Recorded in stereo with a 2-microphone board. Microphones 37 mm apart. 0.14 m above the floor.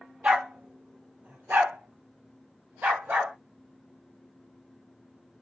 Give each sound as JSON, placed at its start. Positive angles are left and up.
{"t": 0.2, "sound": "a dog barking", "side_deg": -40, "distance_m": 1.0}